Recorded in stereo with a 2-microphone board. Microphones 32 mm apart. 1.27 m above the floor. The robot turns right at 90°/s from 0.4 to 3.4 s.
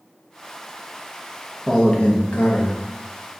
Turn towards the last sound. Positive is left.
turn(degrees=170)